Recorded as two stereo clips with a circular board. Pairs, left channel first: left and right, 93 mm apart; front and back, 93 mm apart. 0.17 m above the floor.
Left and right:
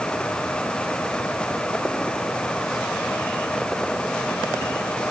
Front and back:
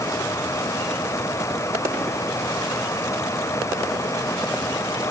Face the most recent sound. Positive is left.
No sound to turn to.